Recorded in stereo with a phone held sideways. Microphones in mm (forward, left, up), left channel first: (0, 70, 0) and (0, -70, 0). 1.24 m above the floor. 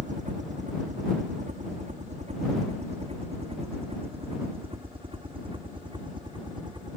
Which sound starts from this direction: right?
A helicopter, at 0.0 s.